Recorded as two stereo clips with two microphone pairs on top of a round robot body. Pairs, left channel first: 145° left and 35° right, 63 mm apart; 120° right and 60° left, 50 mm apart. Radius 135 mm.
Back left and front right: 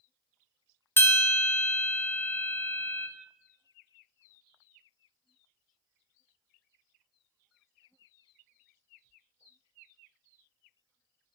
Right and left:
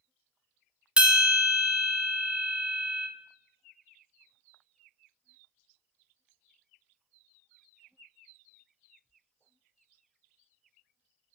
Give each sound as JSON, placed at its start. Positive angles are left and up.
{"t": 1.0, "sound": "a bell", "azimuth_deg": 120, "distance_m": 0.6}